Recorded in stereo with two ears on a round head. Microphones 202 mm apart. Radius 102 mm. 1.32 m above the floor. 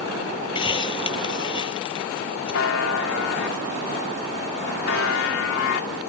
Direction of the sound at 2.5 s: 60° left (ahead or behind).